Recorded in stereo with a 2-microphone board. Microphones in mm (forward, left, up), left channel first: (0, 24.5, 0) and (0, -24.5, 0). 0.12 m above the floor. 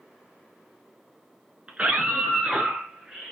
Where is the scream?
25° right (ahead or behind), 1.2 m; by 3.3 s 15° right (ahead or behind), 1.6 m.